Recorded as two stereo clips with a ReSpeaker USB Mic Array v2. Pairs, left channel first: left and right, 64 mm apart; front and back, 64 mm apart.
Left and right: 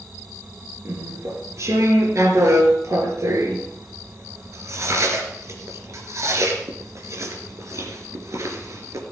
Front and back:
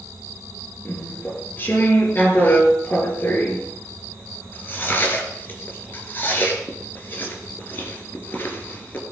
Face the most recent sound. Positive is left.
turn(degrees=-55)